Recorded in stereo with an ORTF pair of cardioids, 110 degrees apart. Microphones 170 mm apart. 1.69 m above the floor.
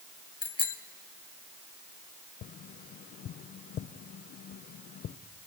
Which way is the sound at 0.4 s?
30° left.